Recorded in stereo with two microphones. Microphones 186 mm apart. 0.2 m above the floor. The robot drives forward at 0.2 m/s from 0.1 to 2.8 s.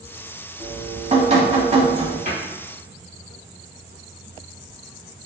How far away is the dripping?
About 0.7 m.